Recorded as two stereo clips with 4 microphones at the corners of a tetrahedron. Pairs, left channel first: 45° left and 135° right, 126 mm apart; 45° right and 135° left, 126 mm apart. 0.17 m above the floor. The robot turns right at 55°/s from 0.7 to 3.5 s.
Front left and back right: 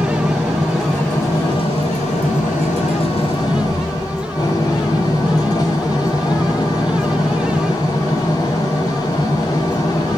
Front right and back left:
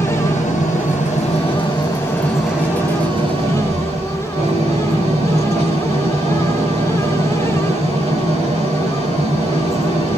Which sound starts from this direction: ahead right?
An engine running, at 0.0 s.